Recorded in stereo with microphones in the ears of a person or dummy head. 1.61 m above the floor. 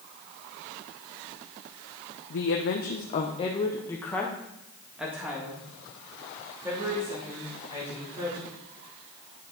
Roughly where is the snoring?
No snoring in this recording.